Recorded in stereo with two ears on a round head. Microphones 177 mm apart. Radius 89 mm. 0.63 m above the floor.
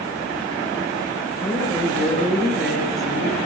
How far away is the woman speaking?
About 9.5 m.